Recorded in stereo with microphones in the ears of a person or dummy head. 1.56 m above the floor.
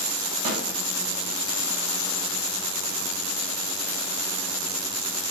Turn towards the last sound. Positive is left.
turn(degrees=-35)  # may be behind; listen again after turning